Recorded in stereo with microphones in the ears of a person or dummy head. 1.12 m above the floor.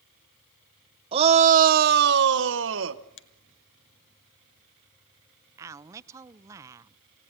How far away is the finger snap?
About 1.4 m.